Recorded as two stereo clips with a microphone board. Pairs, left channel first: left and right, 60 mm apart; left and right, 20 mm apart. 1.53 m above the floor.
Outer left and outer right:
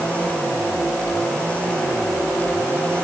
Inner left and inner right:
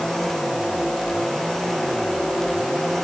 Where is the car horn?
I don't hear a car horn.